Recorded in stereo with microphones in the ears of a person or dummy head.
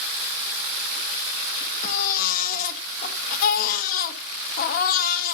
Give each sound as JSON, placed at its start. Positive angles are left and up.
{"t": 1.8, "sound": "a baby crying", "side_deg": 55, "distance_m": 1.5}